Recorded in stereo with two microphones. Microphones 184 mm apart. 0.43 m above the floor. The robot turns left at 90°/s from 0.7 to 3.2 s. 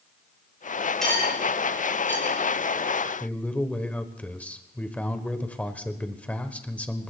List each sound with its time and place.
1.0 s cutlery clinking: centre (ahead or behind), 4 m; by 2.4 s 60° left (ahead or behind), 4 m
3.2 s a man speaking: 5° left (ahead or behind), 1.2 m